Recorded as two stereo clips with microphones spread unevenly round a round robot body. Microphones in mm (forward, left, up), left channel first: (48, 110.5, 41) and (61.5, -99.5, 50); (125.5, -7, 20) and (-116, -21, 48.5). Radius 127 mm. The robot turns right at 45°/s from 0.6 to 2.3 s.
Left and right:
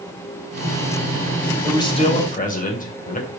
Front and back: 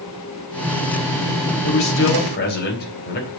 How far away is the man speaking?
About 3 m.